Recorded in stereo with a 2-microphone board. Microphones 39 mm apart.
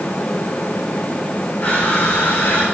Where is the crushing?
80° left, 8.5 m.